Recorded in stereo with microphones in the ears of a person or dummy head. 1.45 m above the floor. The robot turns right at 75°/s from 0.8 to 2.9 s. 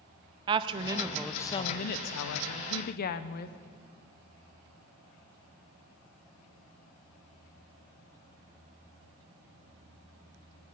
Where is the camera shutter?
I don't hear a camera shutter.